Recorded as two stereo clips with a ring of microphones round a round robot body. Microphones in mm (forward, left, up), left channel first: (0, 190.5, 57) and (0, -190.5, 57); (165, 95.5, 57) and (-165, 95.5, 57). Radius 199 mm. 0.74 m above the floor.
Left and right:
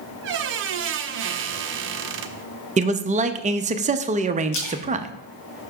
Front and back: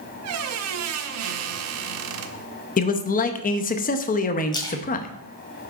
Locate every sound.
0.2 s a squeak: 145° right, 0.5 m
2.8 s a man speaking: 35° right, 0.6 m
4.5 s a splash: 80° left, 2.0 m